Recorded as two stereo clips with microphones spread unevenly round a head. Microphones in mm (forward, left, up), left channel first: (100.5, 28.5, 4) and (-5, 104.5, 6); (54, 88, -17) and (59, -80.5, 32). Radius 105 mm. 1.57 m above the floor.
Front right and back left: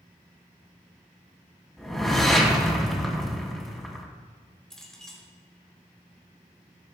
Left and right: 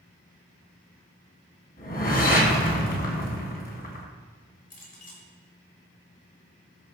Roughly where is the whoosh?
Ahead left.